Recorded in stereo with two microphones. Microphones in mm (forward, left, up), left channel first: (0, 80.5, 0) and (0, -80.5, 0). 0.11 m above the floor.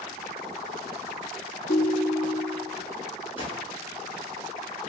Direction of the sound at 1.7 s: 30° left (ahead or behind).